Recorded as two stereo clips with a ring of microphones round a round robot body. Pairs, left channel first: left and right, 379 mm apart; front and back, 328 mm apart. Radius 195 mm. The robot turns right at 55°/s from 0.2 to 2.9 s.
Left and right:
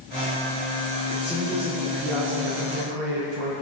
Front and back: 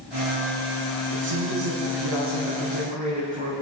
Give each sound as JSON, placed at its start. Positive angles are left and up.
{"t": 1.1, "sound": "a woman speaking", "azimuth_deg": 155, "distance_m": 5.5}